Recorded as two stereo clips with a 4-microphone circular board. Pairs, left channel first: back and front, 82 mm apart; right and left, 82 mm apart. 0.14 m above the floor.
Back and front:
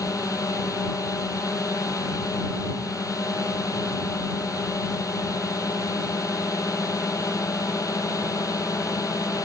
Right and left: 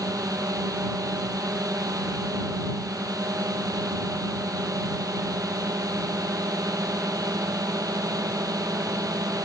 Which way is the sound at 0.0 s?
135° left.